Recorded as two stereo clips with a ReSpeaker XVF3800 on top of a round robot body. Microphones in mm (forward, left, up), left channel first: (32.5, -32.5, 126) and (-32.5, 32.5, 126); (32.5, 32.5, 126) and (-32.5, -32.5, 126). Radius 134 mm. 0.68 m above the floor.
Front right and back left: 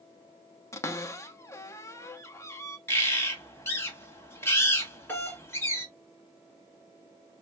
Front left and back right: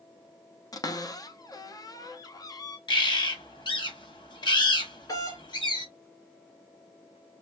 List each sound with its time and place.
0.7 s a cupboard door: 5° left, 0.8 m
2.9 s a bird: 20° left, 1.6 m
5.1 s a doorbell: 15° left, 2 m